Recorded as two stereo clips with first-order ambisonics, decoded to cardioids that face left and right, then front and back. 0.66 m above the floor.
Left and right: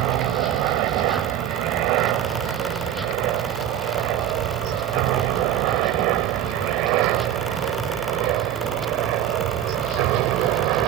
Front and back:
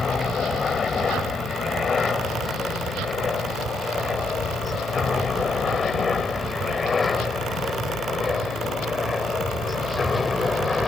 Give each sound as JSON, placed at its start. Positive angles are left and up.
{"t": 0.0, "sound": "a helicopter", "azimuth_deg": -70}